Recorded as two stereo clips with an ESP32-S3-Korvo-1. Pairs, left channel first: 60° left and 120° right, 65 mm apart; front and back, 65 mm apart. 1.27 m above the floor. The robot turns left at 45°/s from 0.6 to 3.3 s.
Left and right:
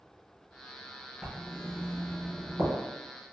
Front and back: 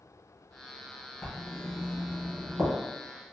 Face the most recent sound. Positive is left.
turn(degrees=-165)